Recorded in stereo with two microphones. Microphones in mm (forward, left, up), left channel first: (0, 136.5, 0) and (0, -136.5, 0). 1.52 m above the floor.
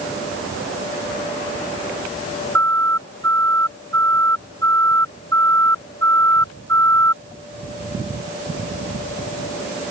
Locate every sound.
2.5 s a siren: 55° right (ahead or behind)